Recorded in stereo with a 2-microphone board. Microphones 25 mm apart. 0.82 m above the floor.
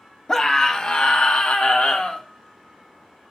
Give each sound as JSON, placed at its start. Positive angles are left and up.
{"t": 0.3, "sound": "a scream", "side_deg": 20, "distance_m": 1.1}